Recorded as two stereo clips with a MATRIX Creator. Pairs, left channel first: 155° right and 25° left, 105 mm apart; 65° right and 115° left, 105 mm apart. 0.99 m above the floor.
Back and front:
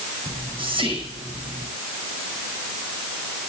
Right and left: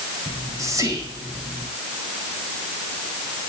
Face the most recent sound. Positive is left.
turn(degrees=55)